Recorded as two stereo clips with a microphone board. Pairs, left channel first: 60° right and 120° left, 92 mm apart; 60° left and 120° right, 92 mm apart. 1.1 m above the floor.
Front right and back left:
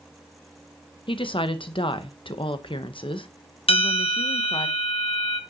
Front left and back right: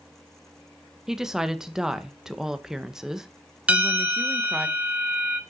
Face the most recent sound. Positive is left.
turn(degrees=-45)